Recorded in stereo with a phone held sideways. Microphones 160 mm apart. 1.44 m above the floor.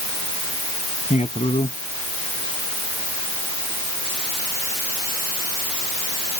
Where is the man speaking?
45° left (ahead or behind).